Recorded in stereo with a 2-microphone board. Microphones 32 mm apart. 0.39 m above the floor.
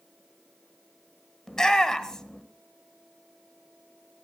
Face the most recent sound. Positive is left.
turn(degrees=20)  # may be behind; listen again after turning